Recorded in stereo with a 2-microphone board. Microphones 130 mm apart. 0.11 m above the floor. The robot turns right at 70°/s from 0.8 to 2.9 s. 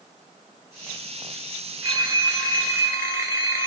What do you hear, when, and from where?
1.8 s a phone ringing: 25° right (ahead or behind), 1.0 m; by 3.7 s 20° right (ahead or behind), 1.0 m